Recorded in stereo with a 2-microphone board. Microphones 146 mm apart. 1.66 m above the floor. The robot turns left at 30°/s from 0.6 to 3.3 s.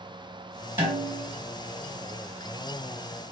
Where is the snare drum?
20° right (ahead or behind), 2 m; by 1.3 s 10° right (ahead or behind), 2 m.